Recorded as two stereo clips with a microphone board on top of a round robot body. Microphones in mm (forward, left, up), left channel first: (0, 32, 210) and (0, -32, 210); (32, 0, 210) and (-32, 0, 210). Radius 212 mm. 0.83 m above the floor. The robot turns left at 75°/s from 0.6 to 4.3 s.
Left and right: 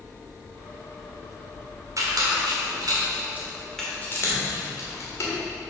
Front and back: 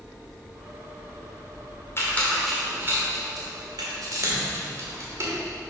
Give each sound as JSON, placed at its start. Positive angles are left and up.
{"t": 2.0, "sound": "a squeak", "azimuth_deg": -50, "distance_m": 1.6}